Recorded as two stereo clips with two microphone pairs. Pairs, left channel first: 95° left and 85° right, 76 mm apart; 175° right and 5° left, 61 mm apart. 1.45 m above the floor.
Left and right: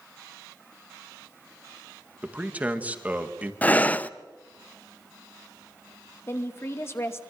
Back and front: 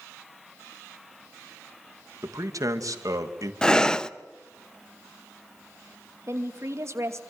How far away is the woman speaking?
About 2.5 m.